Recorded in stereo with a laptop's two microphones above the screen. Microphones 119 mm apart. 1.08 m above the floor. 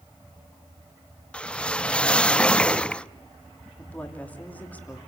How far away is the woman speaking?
About 3 m.